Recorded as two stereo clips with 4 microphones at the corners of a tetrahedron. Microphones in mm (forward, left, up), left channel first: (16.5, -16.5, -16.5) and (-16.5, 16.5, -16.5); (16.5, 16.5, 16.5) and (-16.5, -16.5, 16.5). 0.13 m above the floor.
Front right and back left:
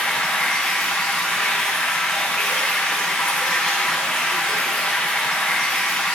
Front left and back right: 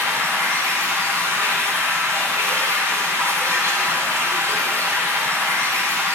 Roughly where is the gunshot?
I don't hear a gunshot.